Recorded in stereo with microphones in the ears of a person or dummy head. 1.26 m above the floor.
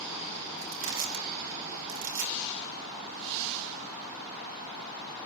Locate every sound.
0.6 s crushing: 70° right (ahead or behind), 5.5 m